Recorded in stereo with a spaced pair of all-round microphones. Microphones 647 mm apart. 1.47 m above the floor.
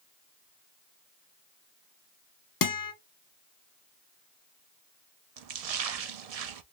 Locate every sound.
2.6 s a guitar: 35° left (ahead or behind), 0.5 m
5.4 s a splash: 65° right (ahead or behind), 0.6 m